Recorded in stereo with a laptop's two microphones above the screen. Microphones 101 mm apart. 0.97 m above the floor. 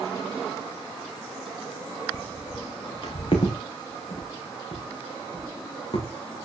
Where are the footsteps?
55° left (ahead or behind), 3.5 m; by 6.0 s 50° left (ahead or behind), 7 m.